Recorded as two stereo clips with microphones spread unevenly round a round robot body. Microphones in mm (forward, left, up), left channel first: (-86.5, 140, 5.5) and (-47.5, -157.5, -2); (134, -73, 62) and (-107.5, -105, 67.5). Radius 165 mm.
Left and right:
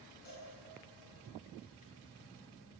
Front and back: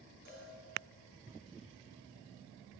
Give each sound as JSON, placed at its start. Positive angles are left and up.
{"t": 0.2, "sound": "a cowbell", "azimuth_deg": 150, "distance_m": 4.5}